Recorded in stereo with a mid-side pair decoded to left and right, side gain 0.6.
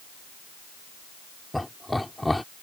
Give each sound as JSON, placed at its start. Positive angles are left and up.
{"t": 1.5, "sound": "laughter", "azimuth_deg": 5}